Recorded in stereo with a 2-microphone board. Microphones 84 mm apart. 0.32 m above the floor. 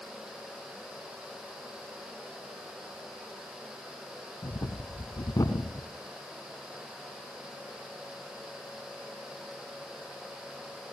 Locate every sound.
4.4 s breathing: 45° left (ahead or behind), 1.0 m